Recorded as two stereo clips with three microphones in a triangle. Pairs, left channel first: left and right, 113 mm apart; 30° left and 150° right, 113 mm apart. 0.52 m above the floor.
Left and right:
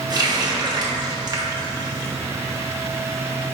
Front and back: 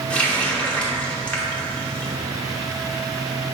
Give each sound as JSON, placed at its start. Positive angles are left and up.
{"t": 0.1, "sound": "a running tap", "azimuth_deg": -50, "distance_m": 0.7}